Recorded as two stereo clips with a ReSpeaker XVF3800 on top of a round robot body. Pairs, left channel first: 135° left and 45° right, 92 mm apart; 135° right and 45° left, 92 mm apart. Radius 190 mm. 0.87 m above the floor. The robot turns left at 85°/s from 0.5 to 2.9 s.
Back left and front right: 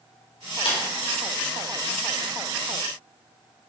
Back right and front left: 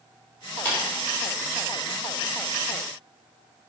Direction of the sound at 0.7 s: 155° left.